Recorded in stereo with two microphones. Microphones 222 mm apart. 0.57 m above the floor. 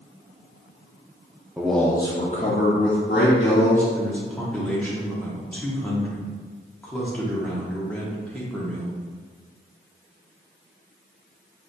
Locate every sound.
1.6 s a man speaking: 5° right (ahead or behind), 0.6 m; by 3.8 s 65° left (ahead or behind), 1.2 m
3.9 s a man speaking: 5° left (ahead or behind), 1.1 m